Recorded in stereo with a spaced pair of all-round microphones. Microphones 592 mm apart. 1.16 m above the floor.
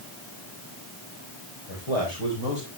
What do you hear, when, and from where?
1.7 s a man speaking: 80° left, 4.5 m; by 2.7 s 85° left, 4 m